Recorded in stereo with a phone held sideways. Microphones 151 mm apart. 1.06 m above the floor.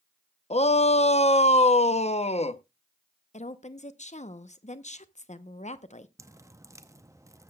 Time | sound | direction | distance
0.5 | a shout | 45° left (ahead or behind) | 0.6 m
3.3 | a woman speaking | 50° left (ahead or behind) | 0.7 m
6.2 | dripping | 20° right (ahead or behind) | 0.6 m